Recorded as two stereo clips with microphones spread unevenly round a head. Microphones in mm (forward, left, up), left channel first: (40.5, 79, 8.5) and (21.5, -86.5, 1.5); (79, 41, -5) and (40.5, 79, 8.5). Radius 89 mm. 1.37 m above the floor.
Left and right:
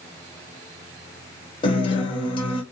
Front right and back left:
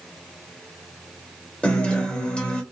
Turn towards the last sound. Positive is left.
turn(degrees=25)